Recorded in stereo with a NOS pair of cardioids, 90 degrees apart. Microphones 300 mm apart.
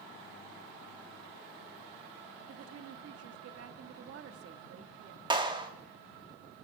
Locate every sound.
2.5 s a woman speaking: 55° right, 1.6 m
5.3 s a clap: 15° right, 2 m